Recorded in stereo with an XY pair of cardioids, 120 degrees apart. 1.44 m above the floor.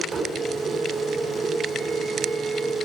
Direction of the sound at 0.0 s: 55° right.